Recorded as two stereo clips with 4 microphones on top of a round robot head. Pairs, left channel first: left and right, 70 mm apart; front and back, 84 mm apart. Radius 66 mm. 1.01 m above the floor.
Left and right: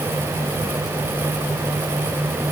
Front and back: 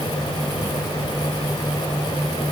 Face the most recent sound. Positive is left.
No sound to turn to.